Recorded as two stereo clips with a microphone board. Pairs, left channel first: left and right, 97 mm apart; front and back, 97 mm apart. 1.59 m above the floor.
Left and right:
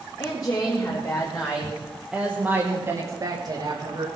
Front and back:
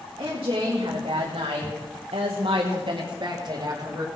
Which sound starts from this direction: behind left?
A woman speaking, at 0.2 s.